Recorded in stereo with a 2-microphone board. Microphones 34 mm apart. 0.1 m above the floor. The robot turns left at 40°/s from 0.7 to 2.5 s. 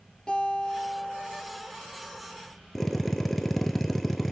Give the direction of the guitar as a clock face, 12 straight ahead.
11 o'clock.